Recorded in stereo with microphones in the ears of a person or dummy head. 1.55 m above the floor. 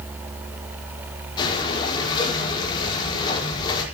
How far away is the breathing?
About 5 m.